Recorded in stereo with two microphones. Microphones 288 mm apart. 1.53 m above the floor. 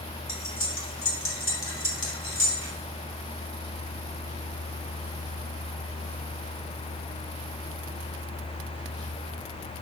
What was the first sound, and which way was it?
Cutlery clinking, 45° left (ahead or behind).